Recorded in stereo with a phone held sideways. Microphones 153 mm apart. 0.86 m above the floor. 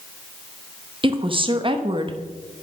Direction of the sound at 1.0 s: 35° right (ahead or behind).